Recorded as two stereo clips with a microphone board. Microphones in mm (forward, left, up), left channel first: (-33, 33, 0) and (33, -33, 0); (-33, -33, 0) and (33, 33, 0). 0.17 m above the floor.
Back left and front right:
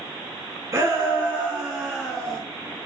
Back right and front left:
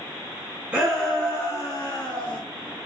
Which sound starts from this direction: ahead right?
A shout, at 0.7 s.